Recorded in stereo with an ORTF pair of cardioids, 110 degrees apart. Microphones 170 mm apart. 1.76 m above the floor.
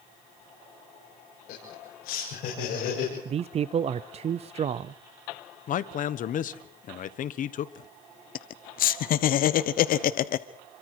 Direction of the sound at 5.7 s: 55° left.